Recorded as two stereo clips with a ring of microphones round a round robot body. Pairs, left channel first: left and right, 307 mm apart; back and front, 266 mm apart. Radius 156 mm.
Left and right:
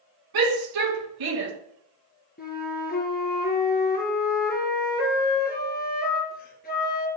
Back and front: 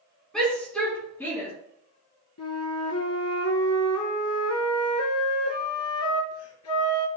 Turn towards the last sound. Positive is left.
turn(degrees=150)